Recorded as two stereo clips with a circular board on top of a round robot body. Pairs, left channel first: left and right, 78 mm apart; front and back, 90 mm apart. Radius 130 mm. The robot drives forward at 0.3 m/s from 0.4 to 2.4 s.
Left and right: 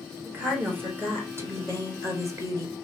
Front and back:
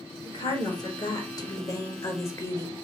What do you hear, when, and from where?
0.2 s a woman speaking: 30° right, 1.6 m; by 2.9 s 50° right, 1.2 m